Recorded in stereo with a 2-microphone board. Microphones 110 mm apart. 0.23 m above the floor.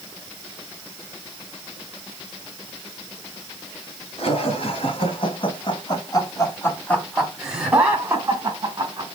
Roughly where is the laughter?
Left.